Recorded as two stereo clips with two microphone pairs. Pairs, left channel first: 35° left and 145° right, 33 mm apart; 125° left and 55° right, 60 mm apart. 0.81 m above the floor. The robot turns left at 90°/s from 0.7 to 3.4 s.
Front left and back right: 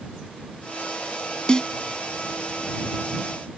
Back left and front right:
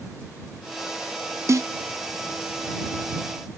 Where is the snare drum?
20° right; by 1.7 s 40° right.